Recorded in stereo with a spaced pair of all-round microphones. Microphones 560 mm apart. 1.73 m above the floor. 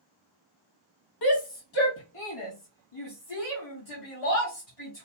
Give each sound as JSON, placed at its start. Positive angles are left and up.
{"t": 1.2, "sound": "a shout", "side_deg": 45, "distance_m": 0.6}